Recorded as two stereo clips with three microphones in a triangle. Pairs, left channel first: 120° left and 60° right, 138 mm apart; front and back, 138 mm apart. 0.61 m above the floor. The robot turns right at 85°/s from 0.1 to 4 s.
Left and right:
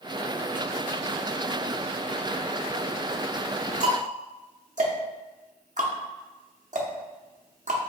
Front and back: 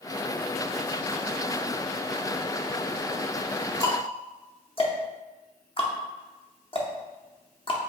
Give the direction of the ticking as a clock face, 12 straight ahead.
2 o'clock.